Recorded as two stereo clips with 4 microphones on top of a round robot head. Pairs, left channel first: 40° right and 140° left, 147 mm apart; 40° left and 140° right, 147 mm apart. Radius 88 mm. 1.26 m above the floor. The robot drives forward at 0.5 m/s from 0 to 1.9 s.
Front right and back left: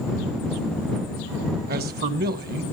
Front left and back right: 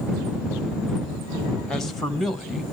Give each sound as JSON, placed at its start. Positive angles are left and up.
{"t": 1.7, "sound": "a man speaking", "azimuth_deg": 125, "distance_m": 1.3}